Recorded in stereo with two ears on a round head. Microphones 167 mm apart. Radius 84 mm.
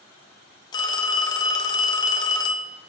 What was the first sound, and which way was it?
A phone ringing, 20° left (ahead or behind).